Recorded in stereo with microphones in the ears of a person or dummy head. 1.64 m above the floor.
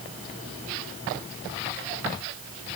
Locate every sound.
Only background noise.